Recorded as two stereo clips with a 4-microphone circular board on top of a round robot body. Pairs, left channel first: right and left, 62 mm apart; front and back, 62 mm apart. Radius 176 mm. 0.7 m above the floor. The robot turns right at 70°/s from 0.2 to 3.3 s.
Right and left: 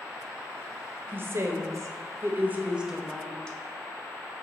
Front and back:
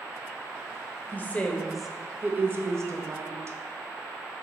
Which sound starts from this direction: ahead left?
A woman speaking, at 1.1 s.